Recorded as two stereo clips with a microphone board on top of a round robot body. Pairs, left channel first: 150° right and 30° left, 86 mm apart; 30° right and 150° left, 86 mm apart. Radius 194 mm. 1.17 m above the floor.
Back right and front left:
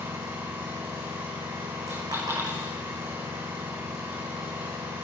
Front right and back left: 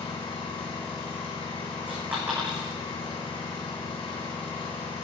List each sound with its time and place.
0.0 s an engine running: 35° right, 7.5 m
1.9 s a dropped coin: 80° left, 8.5 m